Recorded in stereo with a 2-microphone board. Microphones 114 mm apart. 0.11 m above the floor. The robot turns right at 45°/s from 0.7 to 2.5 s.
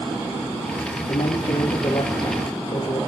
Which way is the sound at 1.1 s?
80° left.